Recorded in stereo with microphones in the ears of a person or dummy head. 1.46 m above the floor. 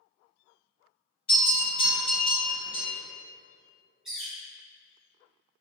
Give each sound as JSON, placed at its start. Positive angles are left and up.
{"t": 1.3, "sound": "a bell", "side_deg": 50, "distance_m": 1.9}
{"t": 4.0, "sound": "a bird", "side_deg": 0, "distance_m": 1.0}